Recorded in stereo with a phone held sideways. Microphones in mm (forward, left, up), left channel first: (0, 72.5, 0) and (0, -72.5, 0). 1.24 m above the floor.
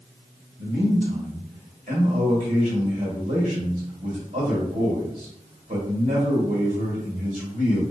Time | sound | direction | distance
0.6 | a man speaking | 60° right (ahead or behind) | 2 m